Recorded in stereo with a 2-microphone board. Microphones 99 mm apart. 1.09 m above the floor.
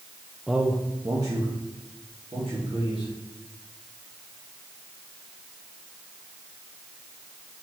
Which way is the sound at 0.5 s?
Centre (ahead or behind).